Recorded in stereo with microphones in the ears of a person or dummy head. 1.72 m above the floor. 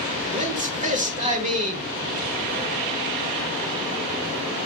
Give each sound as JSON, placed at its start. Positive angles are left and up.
{"t": 0.3, "sound": "a man speaking", "side_deg": -40, "distance_m": 1.1}